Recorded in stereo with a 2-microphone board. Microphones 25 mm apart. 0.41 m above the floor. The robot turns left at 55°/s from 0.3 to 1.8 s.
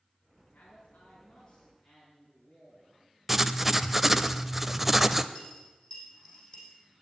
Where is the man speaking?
120° left, 5 m; by 3.1 s 50° left, 5 m.